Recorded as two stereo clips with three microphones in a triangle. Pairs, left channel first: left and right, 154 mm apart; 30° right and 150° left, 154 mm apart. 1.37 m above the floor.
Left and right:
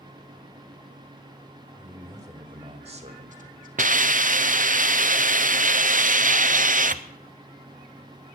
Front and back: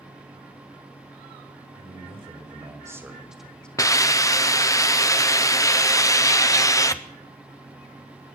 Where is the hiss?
95° right, 0.8 m.